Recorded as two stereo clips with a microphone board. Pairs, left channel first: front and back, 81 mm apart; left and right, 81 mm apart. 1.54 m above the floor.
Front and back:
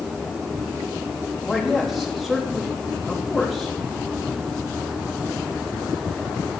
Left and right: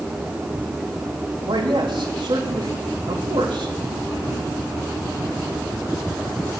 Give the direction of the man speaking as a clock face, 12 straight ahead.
3 o'clock.